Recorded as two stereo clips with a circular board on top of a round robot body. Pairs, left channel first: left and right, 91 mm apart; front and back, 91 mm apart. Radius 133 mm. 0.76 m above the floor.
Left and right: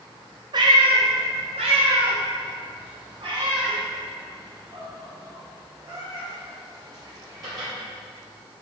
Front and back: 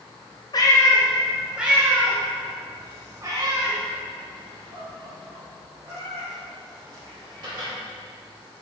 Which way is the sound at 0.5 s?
45° right.